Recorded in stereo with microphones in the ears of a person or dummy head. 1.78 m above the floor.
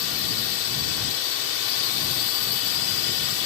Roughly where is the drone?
Left.